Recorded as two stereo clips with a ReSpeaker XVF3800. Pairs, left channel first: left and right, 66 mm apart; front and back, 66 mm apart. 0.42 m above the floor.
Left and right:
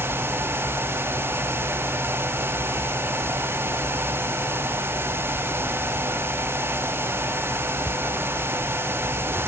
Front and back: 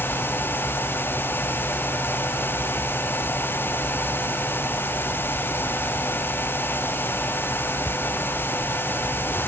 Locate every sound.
Only background noise.